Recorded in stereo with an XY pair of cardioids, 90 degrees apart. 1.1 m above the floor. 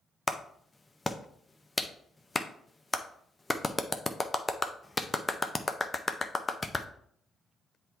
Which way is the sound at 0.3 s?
20° left.